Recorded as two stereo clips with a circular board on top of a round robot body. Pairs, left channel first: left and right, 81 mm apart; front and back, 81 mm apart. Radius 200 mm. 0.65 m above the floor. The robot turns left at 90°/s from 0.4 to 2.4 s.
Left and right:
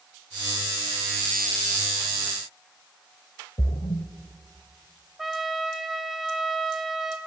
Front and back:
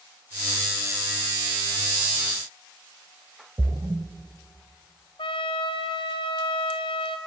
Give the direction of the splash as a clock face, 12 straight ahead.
8 o'clock.